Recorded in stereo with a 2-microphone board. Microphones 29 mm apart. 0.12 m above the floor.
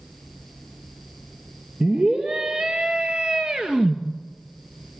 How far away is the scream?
About 3 m.